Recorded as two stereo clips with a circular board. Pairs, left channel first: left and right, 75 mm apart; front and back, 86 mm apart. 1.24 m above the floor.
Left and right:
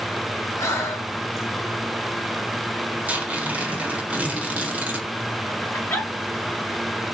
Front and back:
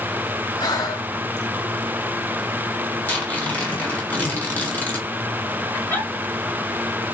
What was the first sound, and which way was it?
Breathing, 40° left.